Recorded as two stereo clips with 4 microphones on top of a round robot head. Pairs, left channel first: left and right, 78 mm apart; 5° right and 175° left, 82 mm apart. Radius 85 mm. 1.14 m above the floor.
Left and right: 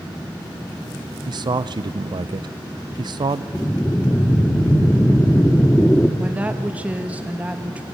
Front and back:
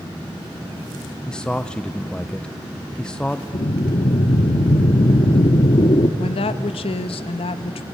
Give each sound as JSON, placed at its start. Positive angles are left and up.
{"t": 1.3, "sound": "a man speaking", "azimuth_deg": -85, "distance_m": 0.5}
{"t": 3.5, "sound": "breathing", "azimuth_deg": 15, "distance_m": 1.1}
{"t": 6.2, "sound": "a woman speaking", "azimuth_deg": -15, "distance_m": 1.1}